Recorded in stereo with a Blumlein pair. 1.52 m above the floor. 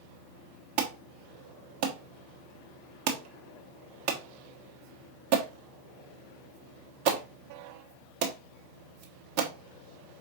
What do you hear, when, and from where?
0.8 s an alarm: 45° right, 1.2 m